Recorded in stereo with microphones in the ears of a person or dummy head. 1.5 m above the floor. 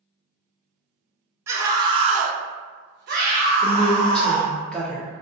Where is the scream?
15° right (ahead or behind), 0.9 m; by 4.5 s 25° right (ahead or behind), 1.6 m.